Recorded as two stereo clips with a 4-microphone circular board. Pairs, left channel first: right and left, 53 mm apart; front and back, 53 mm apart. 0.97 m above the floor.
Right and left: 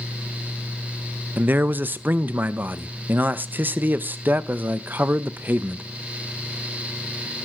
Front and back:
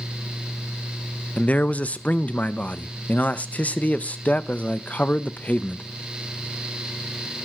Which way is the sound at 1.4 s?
55° left.